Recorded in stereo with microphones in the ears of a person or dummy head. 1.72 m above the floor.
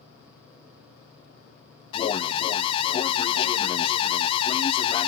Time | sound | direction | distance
1.9 | an alarm | 30° left (ahead or behind) | 0.6 m